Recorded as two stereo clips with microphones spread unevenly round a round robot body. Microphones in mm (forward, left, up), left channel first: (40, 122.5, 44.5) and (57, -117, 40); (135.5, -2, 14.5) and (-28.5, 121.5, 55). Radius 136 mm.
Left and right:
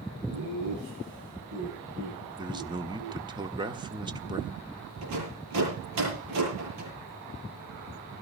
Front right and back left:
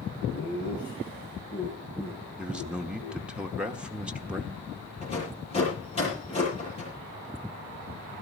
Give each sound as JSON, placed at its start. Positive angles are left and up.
{"t": 0.3, "sound": "laughter", "azimuth_deg": -85, "distance_m": 7.5}
{"t": 2.4, "sound": "a man speaking", "azimuth_deg": -110, "distance_m": 1.3}
{"t": 5.0, "sound": "a rattle", "azimuth_deg": -105, "distance_m": 9.5}